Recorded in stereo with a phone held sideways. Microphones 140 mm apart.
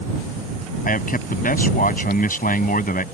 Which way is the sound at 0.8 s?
85° left.